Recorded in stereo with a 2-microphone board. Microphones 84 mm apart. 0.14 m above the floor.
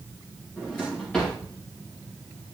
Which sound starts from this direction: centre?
A drawer, at 0.6 s.